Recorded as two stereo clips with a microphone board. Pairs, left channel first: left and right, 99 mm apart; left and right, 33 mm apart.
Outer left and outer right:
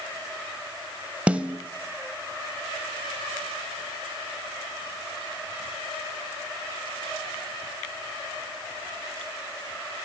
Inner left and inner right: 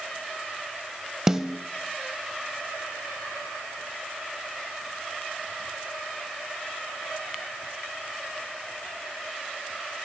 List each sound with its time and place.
1.3 s a snare drum: 15° right (ahead or behind), 0.6 m